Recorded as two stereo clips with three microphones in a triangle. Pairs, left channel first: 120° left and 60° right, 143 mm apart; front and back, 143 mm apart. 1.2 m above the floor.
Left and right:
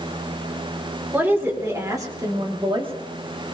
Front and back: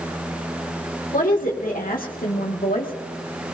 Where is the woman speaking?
15° left, 3 m; by 2.9 s 10° right, 2.0 m.